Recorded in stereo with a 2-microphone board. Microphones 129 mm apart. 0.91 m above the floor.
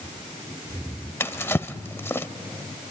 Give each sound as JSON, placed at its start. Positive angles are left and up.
{"t": 1.2, "sound": "a drawer", "side_deg": 20, "distance_m": 1.0}